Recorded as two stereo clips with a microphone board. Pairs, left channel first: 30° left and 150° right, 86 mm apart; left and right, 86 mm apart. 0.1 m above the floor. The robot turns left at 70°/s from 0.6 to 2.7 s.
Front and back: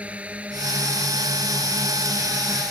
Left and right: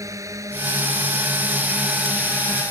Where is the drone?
85° right; by 2.7 s 130° left.